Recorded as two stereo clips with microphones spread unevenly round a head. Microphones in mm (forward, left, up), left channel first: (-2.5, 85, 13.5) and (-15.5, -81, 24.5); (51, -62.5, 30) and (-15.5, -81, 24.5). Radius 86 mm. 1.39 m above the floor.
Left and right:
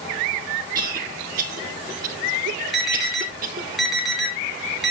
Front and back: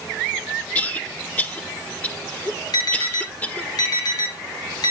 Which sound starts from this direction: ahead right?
A cough, at 0.8 s.